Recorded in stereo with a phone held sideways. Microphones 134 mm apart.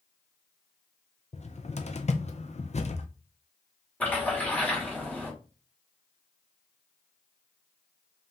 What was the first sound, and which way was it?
A cupboard door, 55° left (ahead or behind).